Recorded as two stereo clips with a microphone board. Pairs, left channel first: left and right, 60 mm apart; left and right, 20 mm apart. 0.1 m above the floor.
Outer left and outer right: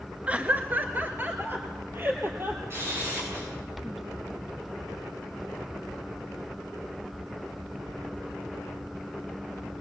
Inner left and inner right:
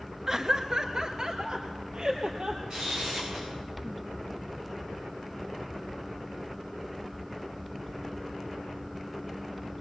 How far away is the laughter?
About 1.1 m.